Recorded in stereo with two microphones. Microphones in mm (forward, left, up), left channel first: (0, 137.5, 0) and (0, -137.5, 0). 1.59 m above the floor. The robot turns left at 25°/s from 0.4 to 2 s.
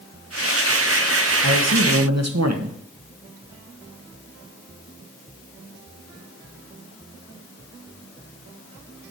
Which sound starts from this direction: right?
A man speaking, at 1.4 s.